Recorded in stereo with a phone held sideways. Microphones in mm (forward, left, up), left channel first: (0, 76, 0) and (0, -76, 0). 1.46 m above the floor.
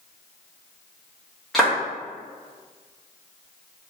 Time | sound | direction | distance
1.5 | a clap | centre (ahead or behind) | 1.4 m